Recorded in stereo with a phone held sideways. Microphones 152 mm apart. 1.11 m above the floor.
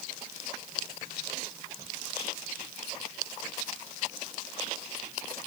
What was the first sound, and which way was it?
Only background noise.